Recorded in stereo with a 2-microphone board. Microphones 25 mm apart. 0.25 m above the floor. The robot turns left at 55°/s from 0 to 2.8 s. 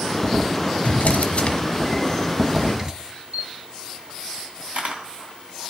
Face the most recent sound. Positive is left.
turn(degrees=-60)  # may be behind; listen again after turning